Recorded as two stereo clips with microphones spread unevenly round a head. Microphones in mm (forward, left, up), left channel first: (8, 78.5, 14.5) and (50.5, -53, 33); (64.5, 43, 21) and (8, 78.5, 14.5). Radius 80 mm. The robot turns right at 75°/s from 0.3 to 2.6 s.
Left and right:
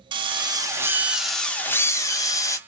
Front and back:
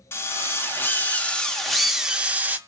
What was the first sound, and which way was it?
A drill, 45° right.